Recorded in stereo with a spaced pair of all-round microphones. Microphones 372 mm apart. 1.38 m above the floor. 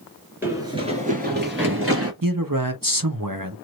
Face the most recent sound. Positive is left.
turn(degrees=-65)  # may be behind; listen again after turning